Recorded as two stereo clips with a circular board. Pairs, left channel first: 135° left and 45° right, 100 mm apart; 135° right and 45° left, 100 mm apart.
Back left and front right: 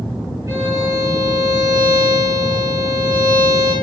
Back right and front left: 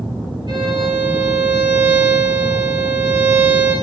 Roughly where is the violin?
Ahead.